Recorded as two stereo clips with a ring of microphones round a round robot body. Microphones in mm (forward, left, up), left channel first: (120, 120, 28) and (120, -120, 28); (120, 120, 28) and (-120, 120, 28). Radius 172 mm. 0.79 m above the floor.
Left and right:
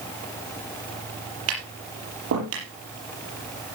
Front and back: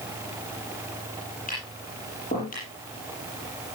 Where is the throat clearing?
I don't hear throat clearing.